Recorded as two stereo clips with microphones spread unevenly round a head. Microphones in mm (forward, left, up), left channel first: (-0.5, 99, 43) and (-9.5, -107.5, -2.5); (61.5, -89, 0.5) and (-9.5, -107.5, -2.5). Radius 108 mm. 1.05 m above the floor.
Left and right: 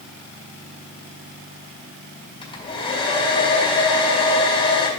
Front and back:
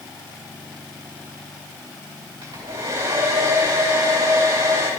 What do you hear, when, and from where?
2.4 s a hair dryer: 155° left, 2 m